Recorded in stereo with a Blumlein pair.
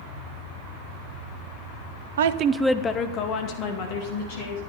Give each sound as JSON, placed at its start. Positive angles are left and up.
{"t": 2.2, "sound": "a woman speaking", "azimuth_deg": -65, "distance_m": 0.7}